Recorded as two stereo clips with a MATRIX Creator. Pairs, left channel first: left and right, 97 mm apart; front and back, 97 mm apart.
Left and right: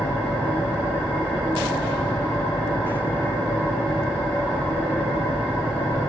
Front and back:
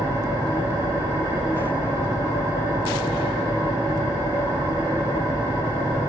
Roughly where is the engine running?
Behind left.